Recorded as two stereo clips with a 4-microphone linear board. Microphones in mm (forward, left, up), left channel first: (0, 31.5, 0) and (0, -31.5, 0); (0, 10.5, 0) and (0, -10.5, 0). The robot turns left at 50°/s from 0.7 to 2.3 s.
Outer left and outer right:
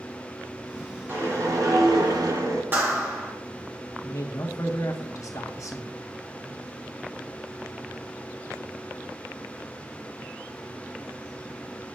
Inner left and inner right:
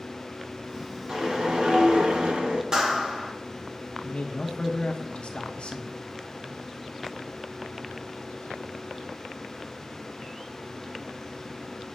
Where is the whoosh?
35° right, 2 m; by 2.6 s 95° right, 2 m.